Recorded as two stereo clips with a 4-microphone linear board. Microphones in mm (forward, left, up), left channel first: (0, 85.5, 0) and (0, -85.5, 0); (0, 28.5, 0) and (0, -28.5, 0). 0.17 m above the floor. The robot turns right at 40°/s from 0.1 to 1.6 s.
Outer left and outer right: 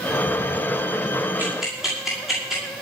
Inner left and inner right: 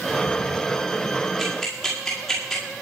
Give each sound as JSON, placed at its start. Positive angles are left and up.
{"t": 1.4, "sound": "ticking", "side_deg": -10, "distance_m": 9.5}